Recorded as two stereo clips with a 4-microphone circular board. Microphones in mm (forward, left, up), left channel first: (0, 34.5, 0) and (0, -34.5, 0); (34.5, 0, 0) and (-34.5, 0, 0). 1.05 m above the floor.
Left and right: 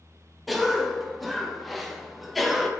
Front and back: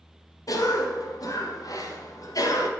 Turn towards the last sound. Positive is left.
turn(degrees=0)